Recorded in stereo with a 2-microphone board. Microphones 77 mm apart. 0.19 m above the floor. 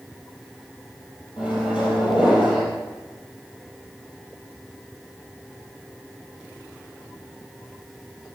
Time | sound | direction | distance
1.4 | a microwave | 15° right (ahead or behind) | 3.5 m